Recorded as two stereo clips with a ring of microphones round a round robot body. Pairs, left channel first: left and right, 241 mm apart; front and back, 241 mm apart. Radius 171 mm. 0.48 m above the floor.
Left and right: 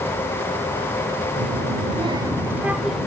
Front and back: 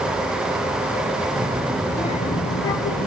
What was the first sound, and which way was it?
A child speaking, 120° right.